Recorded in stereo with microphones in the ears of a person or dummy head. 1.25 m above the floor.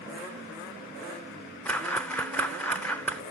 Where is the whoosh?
10° left (ahead or behind), 0.5 m.